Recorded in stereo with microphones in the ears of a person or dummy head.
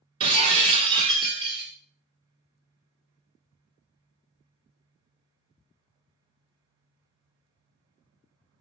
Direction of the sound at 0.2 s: 30° right (ahead or behind).